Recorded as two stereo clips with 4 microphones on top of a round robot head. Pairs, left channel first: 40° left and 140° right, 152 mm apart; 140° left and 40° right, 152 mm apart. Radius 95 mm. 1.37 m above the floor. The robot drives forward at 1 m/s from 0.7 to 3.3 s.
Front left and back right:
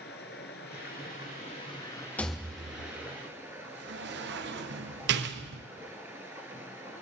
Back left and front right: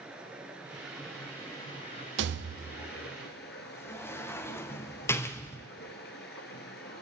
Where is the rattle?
40° right, 0.7 m; by 5.6 s 145° right, 0.8 m.